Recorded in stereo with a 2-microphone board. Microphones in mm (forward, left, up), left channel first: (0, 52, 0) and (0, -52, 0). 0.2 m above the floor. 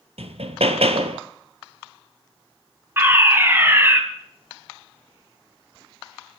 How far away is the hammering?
About 1.2 m.